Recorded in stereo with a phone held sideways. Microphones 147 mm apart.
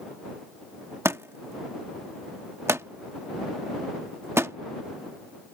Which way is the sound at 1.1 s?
20° right (ahead or behind).